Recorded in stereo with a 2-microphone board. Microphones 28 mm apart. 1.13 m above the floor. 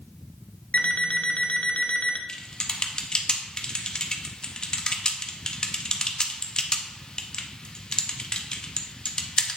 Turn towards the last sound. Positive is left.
turn(degrees=30)  # may be behind; listen again after turning